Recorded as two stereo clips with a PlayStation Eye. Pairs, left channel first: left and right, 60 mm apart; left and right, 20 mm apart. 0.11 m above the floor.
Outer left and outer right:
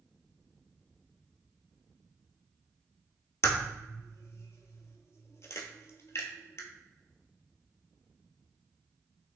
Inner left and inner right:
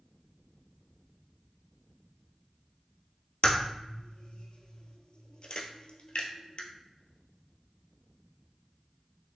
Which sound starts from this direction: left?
A crack, at 3.4 s.